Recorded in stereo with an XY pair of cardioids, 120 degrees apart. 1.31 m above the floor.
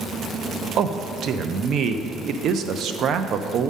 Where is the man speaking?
55° right, 0.6 m.